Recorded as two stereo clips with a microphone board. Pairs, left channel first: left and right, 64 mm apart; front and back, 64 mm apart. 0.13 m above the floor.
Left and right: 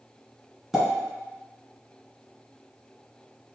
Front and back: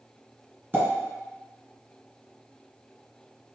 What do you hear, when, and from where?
0.7 s a pop: 170° right, 1.8 m